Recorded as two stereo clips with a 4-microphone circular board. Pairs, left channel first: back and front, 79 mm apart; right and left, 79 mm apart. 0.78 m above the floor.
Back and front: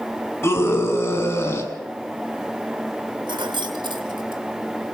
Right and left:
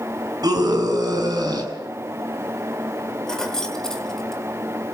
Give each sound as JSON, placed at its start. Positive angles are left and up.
{"t": 0.4, "sound": "a scream", "azimuth_deg": 120, "distance_m": 6.0}
{"t": 3.3, "sound": "keys jangling", "azimuth_deg": -10, "distance_m": 2.5}